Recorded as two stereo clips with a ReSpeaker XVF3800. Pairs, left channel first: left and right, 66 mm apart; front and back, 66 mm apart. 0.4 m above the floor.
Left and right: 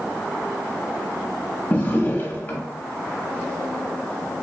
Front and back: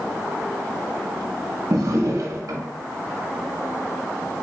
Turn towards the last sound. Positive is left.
turn(degrees=150)